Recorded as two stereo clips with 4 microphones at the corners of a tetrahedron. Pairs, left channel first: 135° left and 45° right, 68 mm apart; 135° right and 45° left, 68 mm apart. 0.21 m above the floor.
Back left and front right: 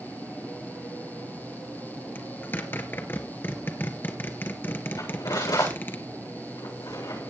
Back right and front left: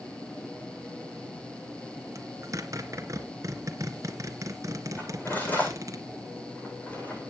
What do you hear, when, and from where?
2.1 s a zipper: 80° left, 2 m
5.0 s cutlery clinking: 160° left, 8.5 m